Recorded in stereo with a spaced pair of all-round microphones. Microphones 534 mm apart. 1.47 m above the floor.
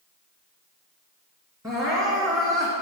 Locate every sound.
1.6 s crying: 5° right (ahead or behind), 2.5 m